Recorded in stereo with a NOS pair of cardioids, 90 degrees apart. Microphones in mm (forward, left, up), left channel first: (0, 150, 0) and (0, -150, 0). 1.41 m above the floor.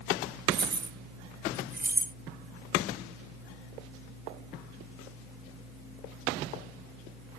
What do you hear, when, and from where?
0.5 s keys jangling: 35° right; by 2.1 s 25° right